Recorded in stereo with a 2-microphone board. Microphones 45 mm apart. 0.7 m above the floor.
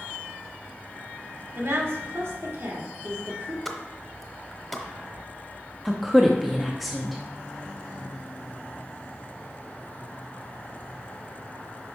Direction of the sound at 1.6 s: 65° right (ahead or behind).